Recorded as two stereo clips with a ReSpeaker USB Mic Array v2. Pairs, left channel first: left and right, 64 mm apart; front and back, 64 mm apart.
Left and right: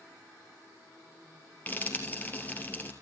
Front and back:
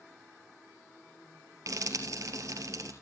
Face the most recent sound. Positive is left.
turn(degrees=155)